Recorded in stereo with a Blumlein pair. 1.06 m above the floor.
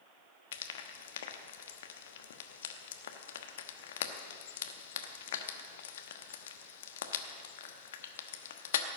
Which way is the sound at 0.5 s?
60° left.